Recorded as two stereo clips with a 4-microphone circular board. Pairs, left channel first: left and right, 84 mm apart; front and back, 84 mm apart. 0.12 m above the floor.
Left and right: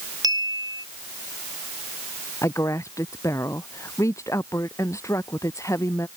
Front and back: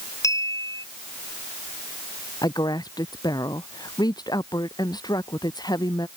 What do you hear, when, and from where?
0.2 s a clink: 50° right
2.4 s a woman speaking: 40° left